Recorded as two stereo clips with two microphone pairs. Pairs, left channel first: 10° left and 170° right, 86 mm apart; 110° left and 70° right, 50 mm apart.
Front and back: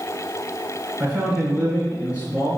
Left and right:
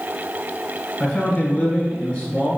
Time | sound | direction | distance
1.0 | a man speaking | 135° left | 1.2 m